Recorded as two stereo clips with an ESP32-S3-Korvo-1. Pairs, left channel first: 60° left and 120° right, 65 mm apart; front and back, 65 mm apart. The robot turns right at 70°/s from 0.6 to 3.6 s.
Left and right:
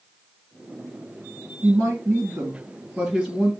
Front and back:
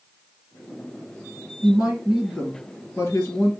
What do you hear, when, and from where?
1.6 s a woman speaking: 130° right, 2 m; by 3.5 s straight ahead, 2 m